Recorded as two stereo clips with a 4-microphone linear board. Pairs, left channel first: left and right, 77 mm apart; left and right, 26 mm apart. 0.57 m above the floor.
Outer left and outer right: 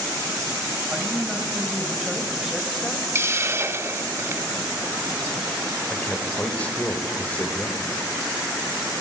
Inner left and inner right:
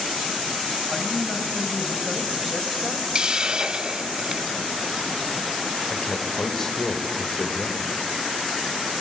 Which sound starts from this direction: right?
A hiss, at 3.1 s.